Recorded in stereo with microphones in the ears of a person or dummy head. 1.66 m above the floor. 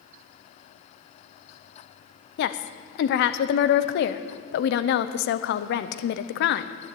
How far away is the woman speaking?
About 0.7 m.